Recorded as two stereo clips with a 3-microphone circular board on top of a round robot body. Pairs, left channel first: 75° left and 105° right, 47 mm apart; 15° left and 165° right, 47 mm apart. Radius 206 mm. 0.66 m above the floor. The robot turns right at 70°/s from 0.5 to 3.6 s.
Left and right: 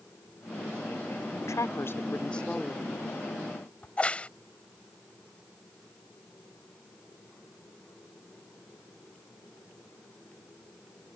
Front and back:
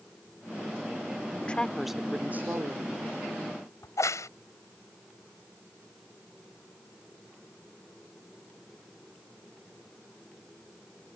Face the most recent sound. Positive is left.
turn(degrees=10)